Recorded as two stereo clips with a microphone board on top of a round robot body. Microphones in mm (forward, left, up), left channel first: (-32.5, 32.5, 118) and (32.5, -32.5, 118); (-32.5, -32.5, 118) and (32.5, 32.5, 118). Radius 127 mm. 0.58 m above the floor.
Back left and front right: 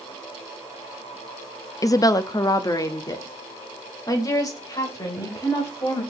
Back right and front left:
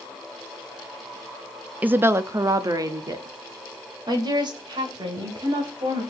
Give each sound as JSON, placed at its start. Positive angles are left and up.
{"t": 1.8, "sound": "a woman speaking", "azimuth_deg": 110, "distance_m": 0.7}